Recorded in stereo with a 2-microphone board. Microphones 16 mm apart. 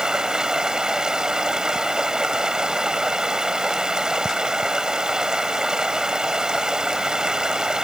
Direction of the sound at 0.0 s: 50° right (ahead or behind).